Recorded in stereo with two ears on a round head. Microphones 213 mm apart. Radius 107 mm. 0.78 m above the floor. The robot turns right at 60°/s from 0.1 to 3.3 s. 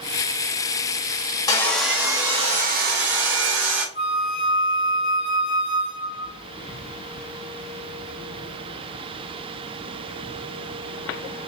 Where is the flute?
40° left (ahead or behind), 1.2 m.